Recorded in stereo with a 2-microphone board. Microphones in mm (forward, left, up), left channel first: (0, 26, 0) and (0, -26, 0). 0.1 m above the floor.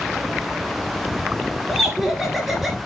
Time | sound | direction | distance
1.7 | laughter | 5° right (ahead or behind) | 1.3 m